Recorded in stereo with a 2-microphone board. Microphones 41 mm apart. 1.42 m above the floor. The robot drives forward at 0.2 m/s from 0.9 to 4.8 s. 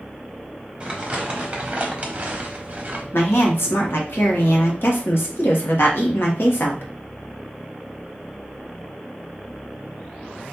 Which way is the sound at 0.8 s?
25° right (ahead or behind).